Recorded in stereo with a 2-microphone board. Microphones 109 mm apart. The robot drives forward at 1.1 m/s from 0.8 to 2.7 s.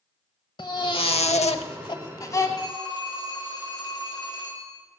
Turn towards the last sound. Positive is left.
turn(degrees=35)  # may be behind; listen again after turning